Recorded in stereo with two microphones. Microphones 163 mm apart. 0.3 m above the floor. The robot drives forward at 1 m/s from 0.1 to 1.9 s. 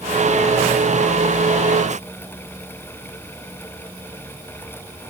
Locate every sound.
Only background noise.